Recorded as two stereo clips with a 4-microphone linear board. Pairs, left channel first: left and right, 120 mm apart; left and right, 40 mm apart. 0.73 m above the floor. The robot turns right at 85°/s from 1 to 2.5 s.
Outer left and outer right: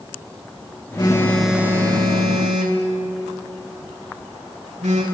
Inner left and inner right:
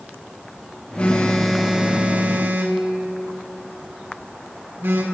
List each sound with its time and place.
1.0 s a phone buzzing: 35° left (ahead or behind), 1.5 m; by 5.0 s 75° right (ahead or behind), 1.5 m